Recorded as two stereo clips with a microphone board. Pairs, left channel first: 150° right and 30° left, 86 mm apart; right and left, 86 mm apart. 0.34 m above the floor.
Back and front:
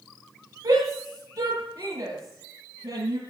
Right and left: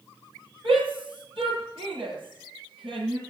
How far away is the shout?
About 8.5 m.